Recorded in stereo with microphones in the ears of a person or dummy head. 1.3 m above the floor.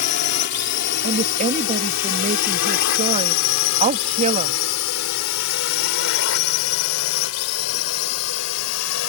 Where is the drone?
55° left (ahead or behind); by 9.1 s 75° left (ahead or behind).